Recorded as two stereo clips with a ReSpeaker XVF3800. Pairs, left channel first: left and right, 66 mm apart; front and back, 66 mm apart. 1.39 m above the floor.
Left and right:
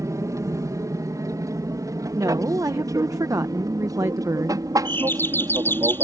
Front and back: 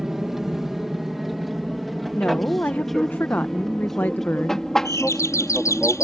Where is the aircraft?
95° right; by 6.0 s 80° right.